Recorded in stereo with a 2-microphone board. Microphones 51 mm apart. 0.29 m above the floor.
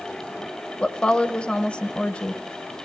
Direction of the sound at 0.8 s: 20° left (ahead or behind).